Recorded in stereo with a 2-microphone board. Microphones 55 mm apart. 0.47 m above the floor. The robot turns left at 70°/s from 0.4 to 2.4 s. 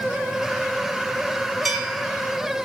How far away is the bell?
About 1.4 m.